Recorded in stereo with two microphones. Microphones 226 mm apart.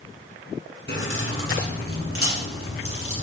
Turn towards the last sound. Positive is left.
turn(degrees=80)